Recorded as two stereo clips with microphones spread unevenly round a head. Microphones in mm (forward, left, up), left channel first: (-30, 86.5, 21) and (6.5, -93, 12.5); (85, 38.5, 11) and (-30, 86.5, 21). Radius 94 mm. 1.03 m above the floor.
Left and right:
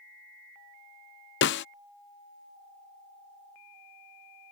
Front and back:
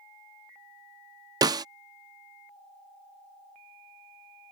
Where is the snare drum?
105° left.